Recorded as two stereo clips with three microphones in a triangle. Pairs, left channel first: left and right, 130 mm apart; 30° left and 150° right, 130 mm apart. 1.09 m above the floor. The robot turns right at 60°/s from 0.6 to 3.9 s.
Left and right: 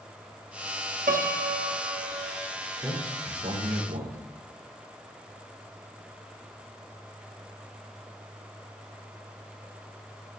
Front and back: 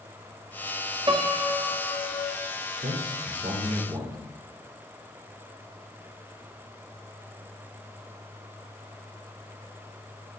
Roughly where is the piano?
Right.